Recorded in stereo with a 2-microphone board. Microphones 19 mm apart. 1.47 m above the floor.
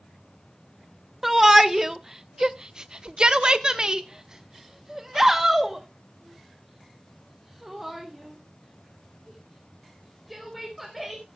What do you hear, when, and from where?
1.2 s a shout: 25° right (ahead or behind), 1.1 m; by 11.4 s 5° right (ahead or behind), 4 m